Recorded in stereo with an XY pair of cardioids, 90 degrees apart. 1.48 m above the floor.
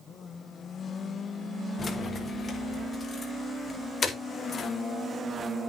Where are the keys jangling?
45° left, 3 m; by 4.7 s 50° left, 4.5 m.